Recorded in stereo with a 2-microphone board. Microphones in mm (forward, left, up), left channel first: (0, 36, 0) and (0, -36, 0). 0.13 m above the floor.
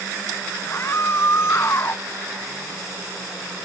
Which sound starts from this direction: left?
A scream, at 0.7 s.